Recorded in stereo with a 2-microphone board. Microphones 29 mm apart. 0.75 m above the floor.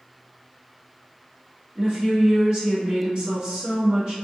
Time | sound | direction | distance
1.8 | a woman speaking | 35° right (ahead or behind) | 1.5 m